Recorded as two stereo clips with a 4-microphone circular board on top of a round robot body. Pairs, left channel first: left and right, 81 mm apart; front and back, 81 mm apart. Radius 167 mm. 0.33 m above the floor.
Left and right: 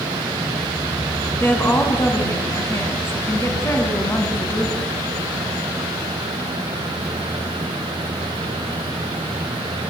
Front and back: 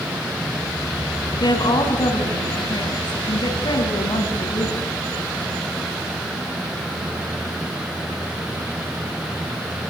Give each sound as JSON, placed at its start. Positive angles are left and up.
{"t": 1.4, "sound": "a woman speaking", "azimuth_deg": 30, "distance_m": 4.5}